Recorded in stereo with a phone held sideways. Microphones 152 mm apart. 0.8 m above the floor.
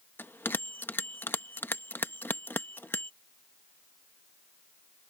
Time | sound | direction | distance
0.2 | a bell | 15° left (ahead or behind) | ?